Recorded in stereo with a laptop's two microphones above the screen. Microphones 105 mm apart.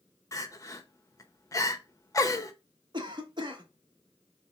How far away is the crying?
About 0.7 m.